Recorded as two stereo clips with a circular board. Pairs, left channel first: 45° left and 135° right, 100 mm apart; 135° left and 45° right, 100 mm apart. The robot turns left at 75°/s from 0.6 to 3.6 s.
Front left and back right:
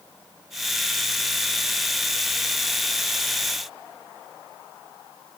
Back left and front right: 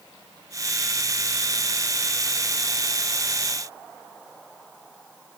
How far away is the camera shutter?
I don't hear a camera shutter.